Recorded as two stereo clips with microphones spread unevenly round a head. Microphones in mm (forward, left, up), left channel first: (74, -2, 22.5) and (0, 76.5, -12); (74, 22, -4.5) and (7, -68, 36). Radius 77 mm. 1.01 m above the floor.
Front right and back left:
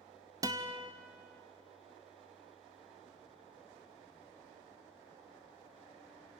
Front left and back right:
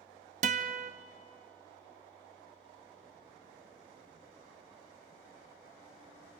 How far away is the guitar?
About 0.6 m.